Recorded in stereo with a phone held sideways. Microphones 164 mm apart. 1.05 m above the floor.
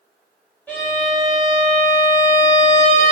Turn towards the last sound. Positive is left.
turn(degrees=10)  # may be behind; listen again after turning